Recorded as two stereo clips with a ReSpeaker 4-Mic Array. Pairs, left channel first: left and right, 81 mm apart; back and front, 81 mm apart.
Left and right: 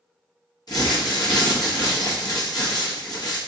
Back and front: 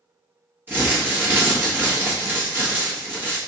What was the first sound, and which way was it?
Crumpling, 65° left.